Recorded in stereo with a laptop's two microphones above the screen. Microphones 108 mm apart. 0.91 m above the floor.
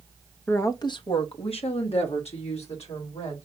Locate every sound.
0.5 s a woman speaking: 15° left (ahead or behind), 0.6 m; by 3.5 s 75° left (ahead or behind), 3 m